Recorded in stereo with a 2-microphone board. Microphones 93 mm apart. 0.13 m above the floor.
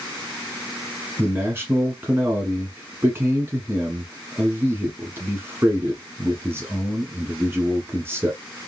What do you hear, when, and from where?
1.2 s a man speaking: 25° right (ahead or behind), 1.1 m